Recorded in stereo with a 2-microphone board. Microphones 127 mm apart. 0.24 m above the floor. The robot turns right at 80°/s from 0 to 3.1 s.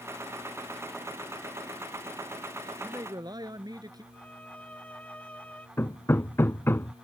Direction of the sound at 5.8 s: 20° left (ahead or behind).